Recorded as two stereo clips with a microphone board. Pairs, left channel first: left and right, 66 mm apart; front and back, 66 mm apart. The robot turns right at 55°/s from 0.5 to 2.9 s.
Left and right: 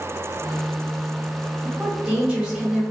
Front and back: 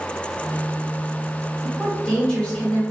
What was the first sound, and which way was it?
A woman speaking, 90° right.